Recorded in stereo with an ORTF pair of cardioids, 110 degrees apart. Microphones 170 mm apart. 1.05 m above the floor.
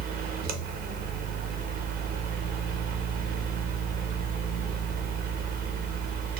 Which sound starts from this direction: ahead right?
A fan, at 0.0 s.